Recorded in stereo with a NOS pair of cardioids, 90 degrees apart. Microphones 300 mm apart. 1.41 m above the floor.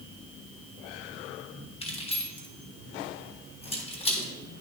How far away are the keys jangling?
About 1.3 m.